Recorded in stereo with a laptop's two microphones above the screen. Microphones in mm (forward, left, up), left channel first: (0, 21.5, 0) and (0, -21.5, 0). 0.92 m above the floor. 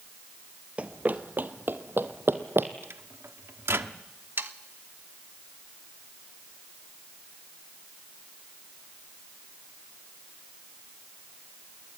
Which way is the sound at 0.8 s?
35° right (ahead or behind).